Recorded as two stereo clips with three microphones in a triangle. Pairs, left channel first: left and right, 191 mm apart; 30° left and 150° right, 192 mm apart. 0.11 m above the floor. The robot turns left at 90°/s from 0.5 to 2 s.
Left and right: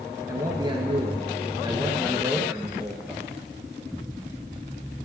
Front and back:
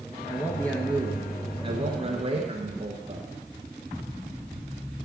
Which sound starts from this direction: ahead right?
A man speaking, at 0.3 s.